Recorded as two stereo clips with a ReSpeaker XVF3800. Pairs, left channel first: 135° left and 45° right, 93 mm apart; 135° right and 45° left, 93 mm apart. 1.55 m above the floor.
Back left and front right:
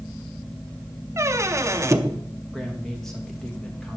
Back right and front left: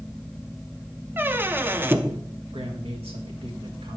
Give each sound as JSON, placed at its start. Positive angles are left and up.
{"t": 1.2, "sound": "a squeak", "azimuth_deg": -10, "distance_m": 0.6}
{"t": 2.5, "sound": "a man speaking", "azimuth_deg": 50, "distance_m": 2.0}